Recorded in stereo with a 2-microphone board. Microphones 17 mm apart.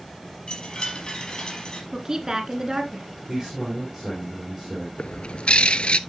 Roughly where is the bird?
Left.